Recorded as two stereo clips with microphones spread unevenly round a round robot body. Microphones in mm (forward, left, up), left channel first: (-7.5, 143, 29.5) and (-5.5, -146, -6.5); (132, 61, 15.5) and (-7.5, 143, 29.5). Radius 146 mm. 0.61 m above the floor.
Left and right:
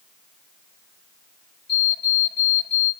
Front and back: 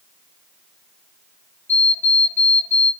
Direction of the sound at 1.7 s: 45° left.